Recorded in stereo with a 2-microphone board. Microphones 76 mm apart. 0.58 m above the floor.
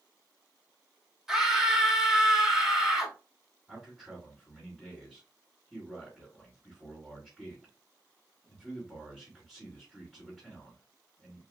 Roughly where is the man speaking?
Centre.